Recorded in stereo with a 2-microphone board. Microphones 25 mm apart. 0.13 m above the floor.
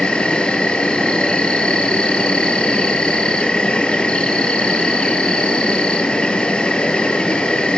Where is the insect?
40° left (ahead or behind), 1.0 m.